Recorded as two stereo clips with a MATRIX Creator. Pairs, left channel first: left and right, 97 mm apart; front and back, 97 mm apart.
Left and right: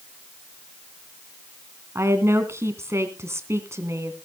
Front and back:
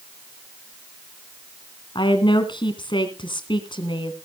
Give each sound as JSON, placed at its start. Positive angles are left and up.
{"t": 1.9, "sound": "a woman speaking", "azimuth_deg": -30, "distance_m": 2.5}